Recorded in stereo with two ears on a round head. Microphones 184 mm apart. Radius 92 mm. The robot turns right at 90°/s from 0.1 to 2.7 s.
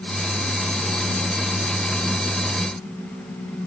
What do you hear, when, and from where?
Only background noise.